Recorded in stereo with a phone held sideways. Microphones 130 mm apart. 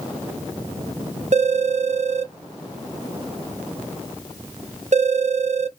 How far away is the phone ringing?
About 0.5 m.